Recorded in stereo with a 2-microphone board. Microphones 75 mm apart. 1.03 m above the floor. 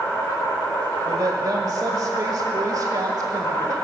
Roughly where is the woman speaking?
Right.